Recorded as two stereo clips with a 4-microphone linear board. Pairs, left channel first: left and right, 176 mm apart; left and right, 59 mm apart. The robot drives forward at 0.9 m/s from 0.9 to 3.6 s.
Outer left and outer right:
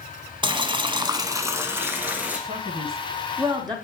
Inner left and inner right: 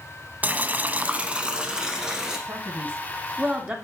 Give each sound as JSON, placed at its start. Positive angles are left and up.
{"t": 0.4, "sound": "boiling", "side_deg": -25, "distance_m": 0.5}
{"t": 2.5, "sound": "a man speaking", "side_deg": -35, "distance_m": 1.1}